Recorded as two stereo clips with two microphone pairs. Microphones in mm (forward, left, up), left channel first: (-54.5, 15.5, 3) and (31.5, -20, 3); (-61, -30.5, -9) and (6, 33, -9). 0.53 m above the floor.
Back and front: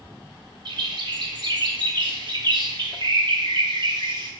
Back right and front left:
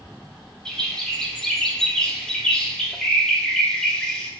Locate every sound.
0.7 s a bird: 55° right, 0.6 m